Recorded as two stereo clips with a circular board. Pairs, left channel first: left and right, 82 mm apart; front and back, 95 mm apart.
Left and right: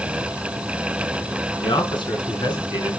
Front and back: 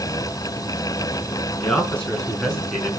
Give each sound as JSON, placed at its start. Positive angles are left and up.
{"t": 1.6, "sound": "a man speaking", "azimuth_deg": 75, "distance_m": 5.0}